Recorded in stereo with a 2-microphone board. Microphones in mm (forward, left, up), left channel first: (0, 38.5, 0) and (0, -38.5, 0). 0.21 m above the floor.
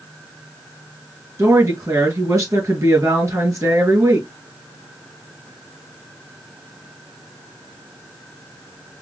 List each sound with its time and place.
1.4 s a woman speaking: 45° right (ahead or behind), 2 m